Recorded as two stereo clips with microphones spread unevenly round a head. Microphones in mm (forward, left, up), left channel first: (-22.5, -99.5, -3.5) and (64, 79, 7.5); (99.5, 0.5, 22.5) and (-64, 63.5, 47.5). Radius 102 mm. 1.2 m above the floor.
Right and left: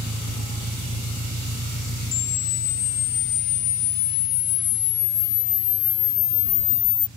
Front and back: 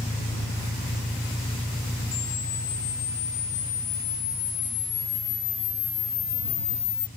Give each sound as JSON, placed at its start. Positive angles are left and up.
{"t": 0.0, "sound": "an engine running", "azimuth_deg": 60}
{"t": 2.1, "sound": "a camera shutter", "azimuth_deg": -95}